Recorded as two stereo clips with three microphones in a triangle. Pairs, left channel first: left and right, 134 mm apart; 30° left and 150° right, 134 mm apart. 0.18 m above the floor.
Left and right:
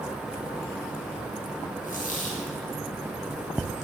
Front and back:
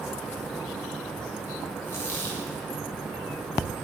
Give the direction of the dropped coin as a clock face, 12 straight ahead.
9 o'clock.